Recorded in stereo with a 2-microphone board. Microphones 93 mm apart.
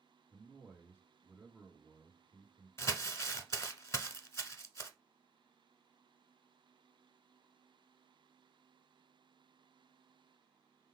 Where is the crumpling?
35° left (ahead or behind), 0.7 m.